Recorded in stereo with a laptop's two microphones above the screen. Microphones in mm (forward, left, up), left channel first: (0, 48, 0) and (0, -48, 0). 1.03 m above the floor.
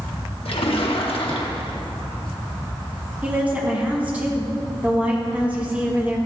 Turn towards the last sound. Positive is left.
turn(degrees=-15)  # may be behind; listen again after turning